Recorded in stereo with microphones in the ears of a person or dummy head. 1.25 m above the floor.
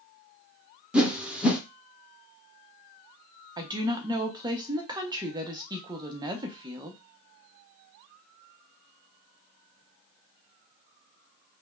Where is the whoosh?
5° right (ahead or behind), 0.6 m.